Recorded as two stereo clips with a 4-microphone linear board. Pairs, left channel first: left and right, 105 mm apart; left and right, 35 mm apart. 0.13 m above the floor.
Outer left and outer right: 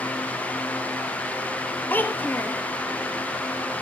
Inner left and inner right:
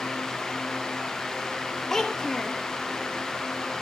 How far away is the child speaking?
About 2 m.